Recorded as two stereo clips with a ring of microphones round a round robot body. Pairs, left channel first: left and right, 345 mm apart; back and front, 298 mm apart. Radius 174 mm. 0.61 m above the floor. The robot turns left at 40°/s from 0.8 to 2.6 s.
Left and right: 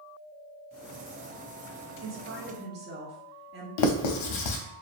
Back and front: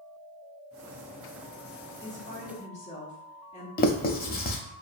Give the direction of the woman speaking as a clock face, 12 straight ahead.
3 o'clock.